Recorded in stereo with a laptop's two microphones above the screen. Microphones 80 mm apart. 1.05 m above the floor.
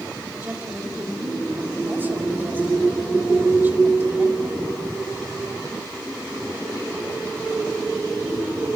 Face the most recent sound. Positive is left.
turn(degrees=-25)  # may be behind; listen again after turning